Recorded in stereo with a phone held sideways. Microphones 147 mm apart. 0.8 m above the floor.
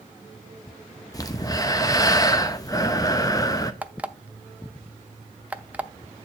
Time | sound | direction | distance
1.1 | breathing | 25° left (ahead or behind) | 0.8 m
3.8 | an alarm clock | 10° right (ahead or behind) | 0.6 m